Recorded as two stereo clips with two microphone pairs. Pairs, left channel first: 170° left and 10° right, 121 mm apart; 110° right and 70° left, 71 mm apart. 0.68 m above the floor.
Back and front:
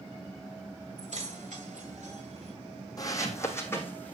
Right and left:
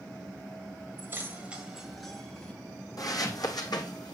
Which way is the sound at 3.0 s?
130° right.